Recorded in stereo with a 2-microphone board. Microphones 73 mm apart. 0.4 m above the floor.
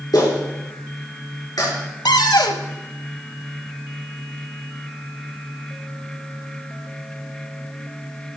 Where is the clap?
60° left (ahead or behind), 5 m.